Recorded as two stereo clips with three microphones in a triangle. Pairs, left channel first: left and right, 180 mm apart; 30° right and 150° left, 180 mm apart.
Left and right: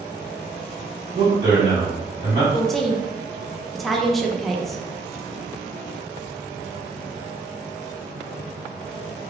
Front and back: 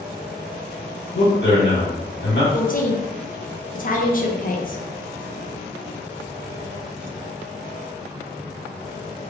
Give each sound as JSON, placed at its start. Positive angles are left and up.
{"t": 1.1, "sound": "a man speaking", "azimuth_deg": -20, "distance_m": 1.8}
{"t": 2.5, "sound": "a woman speaking", "azimuth_deg": 0, "distance_m": 0.6}